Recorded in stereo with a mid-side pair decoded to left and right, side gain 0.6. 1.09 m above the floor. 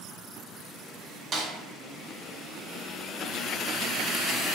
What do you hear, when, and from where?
1.3 s a snare drum: 35° right, 0.8 m